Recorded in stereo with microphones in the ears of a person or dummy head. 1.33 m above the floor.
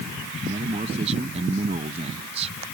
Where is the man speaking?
30° right (ahead or behind).